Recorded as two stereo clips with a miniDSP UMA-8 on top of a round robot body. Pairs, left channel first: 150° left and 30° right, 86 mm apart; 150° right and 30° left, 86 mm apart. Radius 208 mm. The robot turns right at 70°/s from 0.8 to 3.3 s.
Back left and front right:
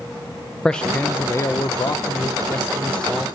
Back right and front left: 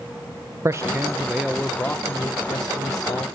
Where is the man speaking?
75° left, 0.7 m; by 3.3 s 115° right, 0.7 m.